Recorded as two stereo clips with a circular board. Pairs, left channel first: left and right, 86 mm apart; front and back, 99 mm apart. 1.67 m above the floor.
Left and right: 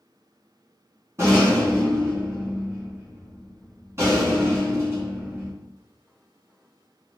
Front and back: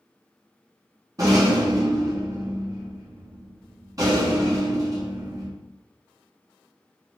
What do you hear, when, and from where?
1.2 s a rattle: 140° right, 1.6 m